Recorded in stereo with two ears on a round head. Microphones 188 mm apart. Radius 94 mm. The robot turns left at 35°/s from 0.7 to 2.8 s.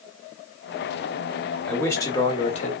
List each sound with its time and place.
1.7 s a man speaking: 175° left, 1.2 m; by 2.7 s 135° left, 1.2 m